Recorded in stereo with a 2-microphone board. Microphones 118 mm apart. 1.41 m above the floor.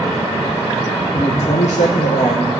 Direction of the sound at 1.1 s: 45° left (ahead or behind).